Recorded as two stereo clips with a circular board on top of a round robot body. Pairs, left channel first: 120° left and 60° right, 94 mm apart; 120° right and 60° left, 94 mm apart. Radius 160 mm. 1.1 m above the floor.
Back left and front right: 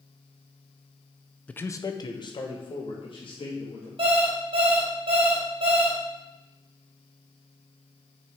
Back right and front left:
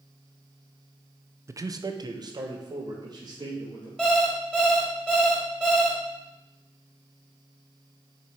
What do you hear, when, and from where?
1.5 s a man speaking: 55° left, 0.7 m; by 3.9 s 100° left, 3 m
4.0 s an alarm clock: 40° right, 2 m